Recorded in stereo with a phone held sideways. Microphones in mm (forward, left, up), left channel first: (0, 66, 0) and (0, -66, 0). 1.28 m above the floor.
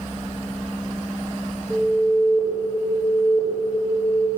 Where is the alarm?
45° right (ahead or behind), 4.5 m.